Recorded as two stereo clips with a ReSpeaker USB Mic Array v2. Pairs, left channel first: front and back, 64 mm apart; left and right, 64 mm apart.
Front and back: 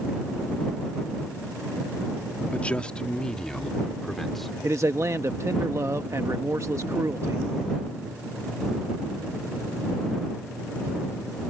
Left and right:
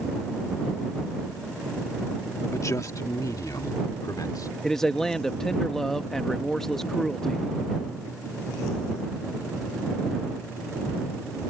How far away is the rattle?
I don't hear a rattle.